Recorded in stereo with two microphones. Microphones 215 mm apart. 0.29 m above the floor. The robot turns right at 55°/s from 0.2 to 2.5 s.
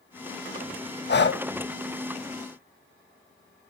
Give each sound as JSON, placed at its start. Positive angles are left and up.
{"t": 1.1, "sound": "breathing", "side_deg": 55, "distance_m": 0.7}